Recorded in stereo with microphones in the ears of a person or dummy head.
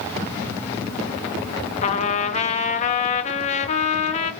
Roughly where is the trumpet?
Left.